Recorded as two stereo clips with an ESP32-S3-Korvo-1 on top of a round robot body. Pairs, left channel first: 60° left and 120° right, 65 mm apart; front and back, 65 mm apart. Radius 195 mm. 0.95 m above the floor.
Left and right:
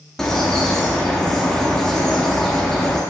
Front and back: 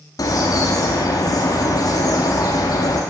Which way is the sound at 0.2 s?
25° right.